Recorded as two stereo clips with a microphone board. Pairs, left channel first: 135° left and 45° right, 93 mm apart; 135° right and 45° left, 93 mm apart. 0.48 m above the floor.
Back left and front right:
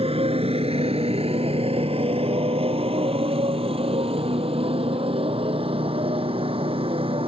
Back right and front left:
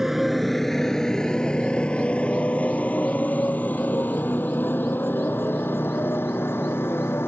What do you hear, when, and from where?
0.0 s a motorcycle: 40° right; by 7.3 s 65° right